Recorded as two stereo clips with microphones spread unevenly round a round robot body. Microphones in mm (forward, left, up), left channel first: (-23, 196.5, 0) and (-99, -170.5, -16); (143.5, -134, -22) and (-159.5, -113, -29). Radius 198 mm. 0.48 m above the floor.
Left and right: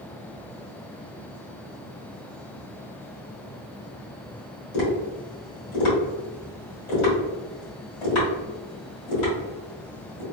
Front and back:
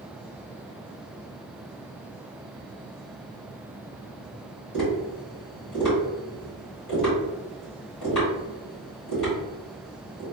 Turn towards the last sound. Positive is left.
turn(degrees=60)